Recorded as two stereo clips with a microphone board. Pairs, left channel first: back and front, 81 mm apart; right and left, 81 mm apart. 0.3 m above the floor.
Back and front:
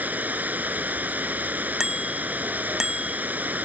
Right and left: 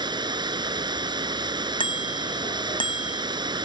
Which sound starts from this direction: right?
A bicycle bell, at 1.8 s.